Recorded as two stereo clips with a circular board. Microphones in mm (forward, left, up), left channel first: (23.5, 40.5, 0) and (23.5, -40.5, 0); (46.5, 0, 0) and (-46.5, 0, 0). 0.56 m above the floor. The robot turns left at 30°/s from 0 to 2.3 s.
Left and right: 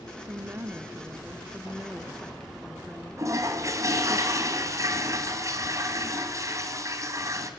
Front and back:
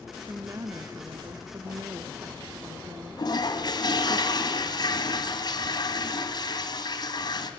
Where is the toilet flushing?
40° right, 2 m.